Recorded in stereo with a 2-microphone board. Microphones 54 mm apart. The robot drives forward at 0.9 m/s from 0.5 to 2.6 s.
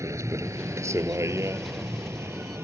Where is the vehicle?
70° right (ahead or behind); by 2.6 s 55° right (ahead or behind).